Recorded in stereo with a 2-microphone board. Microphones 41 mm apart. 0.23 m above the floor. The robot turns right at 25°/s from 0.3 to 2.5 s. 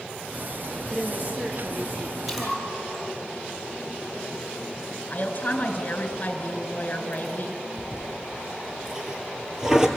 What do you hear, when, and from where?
0.9 s a woman speaking: 160° right, 4 m; by 3.3 s 120° right, 4 m
2.3 s a splash: centre (ahead or behind), 8 m; by 3.0 s 5° right (ahead or behind), 8 m
5.1 s a woman speaking: 40° left (ahead or behind), 2.5 m
7.8 s a toilet flushing: 15° right (ahead or behind), 2.5 m